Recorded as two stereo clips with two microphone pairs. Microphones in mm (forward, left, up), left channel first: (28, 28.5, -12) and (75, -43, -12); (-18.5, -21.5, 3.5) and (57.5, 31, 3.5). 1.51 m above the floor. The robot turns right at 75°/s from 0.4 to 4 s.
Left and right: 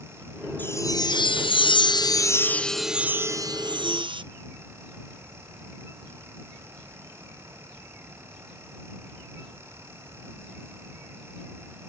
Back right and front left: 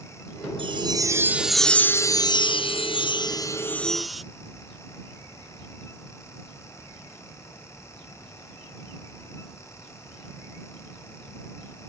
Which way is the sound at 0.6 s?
50° left.